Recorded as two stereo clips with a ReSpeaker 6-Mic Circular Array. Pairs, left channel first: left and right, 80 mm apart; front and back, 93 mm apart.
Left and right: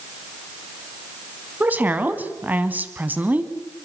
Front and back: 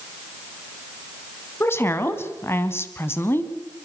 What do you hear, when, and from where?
1.6 s a woman speaking: 40° right, 1.7 m